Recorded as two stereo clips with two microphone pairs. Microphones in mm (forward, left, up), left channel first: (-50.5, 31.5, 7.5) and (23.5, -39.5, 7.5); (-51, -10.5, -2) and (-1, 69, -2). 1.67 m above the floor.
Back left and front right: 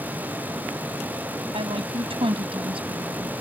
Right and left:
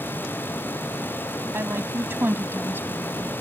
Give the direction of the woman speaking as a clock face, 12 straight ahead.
12 o'clock.